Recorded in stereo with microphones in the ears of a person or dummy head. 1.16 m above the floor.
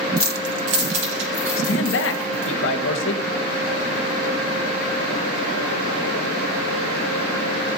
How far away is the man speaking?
About 1.2 m.